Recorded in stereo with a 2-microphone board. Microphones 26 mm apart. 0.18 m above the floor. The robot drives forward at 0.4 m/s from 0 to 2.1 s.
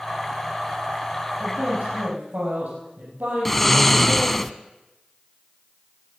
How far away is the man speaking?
About 6 m.